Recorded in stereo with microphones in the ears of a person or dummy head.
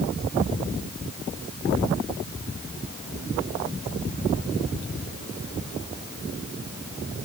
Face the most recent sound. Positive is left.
No sound to turn to.